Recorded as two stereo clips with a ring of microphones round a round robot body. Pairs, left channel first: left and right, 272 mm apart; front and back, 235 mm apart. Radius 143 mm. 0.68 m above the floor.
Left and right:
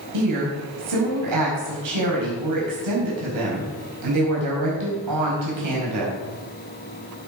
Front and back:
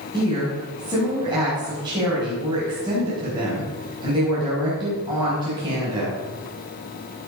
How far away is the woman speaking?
About 5 m.